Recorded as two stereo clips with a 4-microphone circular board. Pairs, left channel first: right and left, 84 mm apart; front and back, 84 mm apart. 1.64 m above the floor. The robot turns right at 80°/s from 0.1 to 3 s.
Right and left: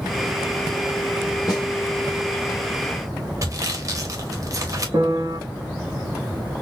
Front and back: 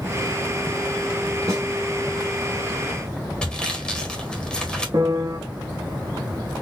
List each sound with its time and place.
1.5 s a snare drum: 135° right, 1.9 m; by 1.6 s 120° right, 1.9 m
3.4 s sawing: 75° left, 1.1 m
4.9 s a piano: 135° left, 1.0 m